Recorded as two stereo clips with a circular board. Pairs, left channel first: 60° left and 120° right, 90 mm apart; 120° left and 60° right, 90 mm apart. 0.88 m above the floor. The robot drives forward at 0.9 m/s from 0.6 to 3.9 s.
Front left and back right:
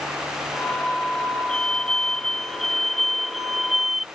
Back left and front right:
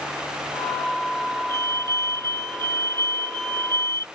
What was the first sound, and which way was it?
A fire alarm, 20° right.